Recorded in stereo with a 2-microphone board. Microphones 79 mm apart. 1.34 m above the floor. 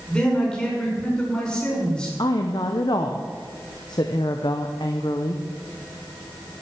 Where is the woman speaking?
65° left (ahead or behind), 0.8 m.